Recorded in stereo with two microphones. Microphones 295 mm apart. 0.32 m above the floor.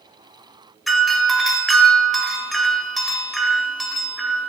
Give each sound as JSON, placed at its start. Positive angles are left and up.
{"t": 0.9, "sound": "a doorbell", "side_deg": 0, "distance_m": 1.4}